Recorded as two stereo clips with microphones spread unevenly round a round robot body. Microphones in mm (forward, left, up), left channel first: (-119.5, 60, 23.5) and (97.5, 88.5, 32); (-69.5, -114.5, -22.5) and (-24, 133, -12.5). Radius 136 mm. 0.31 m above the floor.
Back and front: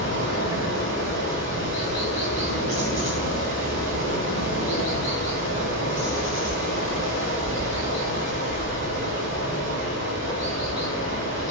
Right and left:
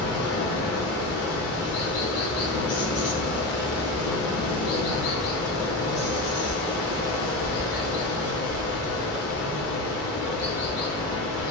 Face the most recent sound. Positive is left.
turn(degrees=-60)